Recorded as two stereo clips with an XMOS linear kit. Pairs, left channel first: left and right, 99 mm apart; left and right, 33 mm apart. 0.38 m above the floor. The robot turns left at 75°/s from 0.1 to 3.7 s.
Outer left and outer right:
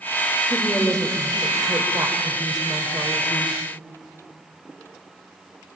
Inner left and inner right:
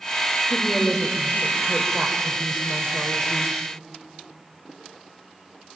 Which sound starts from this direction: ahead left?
A woman speaking, at 0.5 s.